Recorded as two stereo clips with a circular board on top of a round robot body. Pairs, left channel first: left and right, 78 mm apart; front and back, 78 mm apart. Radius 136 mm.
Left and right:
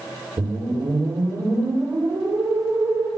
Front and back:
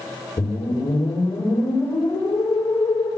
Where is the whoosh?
45° right, 7 m.